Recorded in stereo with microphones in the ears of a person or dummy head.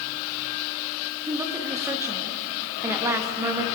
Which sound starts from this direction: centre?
A woman speaking, at 1.3 s.